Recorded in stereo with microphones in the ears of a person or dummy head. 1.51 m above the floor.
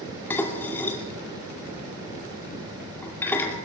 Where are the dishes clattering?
5° left (ahead or behind), 2.5 m.